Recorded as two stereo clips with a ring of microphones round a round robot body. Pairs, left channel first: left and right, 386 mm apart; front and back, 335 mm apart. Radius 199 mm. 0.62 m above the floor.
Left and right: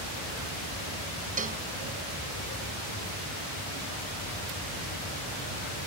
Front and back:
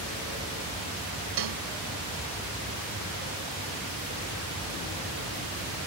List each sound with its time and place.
1.4 s a cowbell: 160° right